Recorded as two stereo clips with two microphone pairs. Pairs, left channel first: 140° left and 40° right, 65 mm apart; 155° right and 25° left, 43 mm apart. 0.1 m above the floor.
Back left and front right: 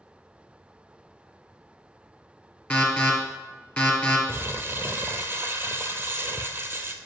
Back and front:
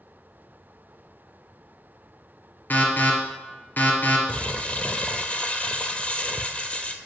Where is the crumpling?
95° right, 0.5 m.